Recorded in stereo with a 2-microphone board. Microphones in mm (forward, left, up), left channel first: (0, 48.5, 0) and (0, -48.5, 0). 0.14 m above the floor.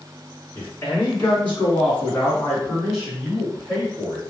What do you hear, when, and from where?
0.6 s a man speaking: 25° left (ahead or behind), 1.6 m; by 4.2 s 15° right (ahead or behind), 1.9 m